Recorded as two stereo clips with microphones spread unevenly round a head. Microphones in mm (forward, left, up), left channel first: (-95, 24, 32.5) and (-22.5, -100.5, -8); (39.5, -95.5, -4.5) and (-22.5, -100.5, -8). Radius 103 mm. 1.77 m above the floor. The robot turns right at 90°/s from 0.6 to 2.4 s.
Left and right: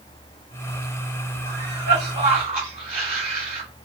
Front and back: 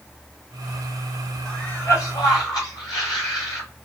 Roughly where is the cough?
Right.